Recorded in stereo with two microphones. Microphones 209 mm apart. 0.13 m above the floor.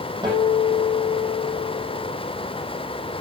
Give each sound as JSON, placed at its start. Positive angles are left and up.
{"t": 0.2, "sound": "a guitar", "side_deg": -20, "distance_m": 6.0}